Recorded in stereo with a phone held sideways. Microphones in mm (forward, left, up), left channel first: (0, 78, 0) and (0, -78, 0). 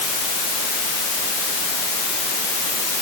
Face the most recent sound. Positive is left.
No sound to turn to.